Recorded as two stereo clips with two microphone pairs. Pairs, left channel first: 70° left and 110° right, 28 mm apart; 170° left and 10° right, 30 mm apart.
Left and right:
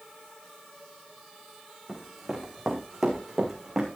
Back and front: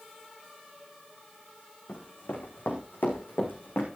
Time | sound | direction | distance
1.9 | running footsteps | 170° left | 5 m